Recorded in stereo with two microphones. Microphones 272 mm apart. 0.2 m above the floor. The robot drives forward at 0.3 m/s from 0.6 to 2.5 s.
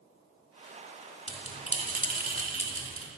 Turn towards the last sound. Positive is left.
turn(degrees=20)  # may be behind; listen again after turning